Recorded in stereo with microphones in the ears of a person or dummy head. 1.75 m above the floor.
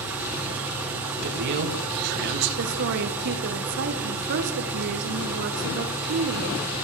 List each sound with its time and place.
0.0 s an engine running: 15° right (ahead or behind), 5 m
1.2 s a man speaking: 55° right (ahead or behind), 3 m
2.6 s a woman speaking: 55° right (ahead or behind), 2.5 m